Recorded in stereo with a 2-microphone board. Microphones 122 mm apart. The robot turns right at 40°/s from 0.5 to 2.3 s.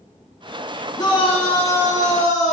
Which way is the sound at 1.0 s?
30° left.